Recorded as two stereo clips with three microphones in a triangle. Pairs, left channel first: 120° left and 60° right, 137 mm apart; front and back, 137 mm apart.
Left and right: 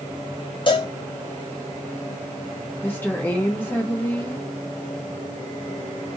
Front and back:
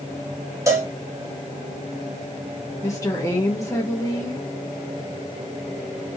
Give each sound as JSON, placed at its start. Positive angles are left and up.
{"t": 0.7, "sound": "a cowbell", "azimuth_deg": 125, "distance_m": 0.9}
{"t": 2.8, "sound": "a woman speaking", "azimuth_deg": 55, "distance_m": 0.8}